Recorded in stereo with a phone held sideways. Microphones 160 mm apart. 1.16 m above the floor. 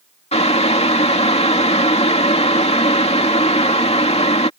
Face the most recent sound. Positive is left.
turn(degrees=40)  # may be behind; listen again after turning